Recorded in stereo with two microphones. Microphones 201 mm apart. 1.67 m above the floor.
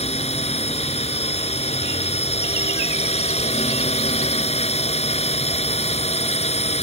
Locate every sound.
0.0 s a drone: 30° left (ahead or behind)